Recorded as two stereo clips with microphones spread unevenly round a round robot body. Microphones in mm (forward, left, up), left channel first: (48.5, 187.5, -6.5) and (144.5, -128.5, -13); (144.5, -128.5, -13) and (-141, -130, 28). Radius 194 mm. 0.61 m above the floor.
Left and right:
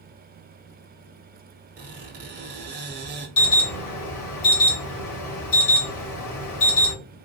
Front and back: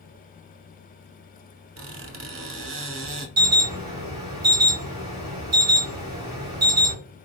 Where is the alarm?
110° left, 2.5 m.